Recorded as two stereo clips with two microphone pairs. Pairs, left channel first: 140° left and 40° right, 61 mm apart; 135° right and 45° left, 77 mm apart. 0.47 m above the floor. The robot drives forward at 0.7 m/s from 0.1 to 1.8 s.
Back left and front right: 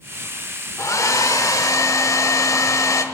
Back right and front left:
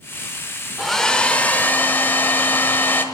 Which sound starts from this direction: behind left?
A hair dryer, at 0.8 s.